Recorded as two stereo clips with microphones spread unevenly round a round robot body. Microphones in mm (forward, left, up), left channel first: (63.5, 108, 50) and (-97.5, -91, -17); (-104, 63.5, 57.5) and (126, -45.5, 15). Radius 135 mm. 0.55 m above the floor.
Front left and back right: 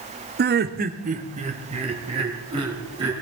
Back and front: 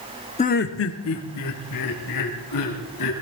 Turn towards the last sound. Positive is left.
turn(degrees=160)